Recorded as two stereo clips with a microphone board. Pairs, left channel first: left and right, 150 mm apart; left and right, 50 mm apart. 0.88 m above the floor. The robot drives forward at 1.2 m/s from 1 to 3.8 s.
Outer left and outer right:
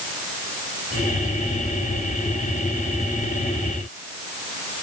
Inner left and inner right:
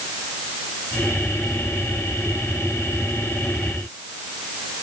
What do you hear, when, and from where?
Only background noise.